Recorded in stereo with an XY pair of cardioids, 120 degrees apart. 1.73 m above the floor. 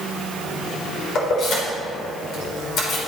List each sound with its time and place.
1.1 s keys jangling: 65° left, 4 m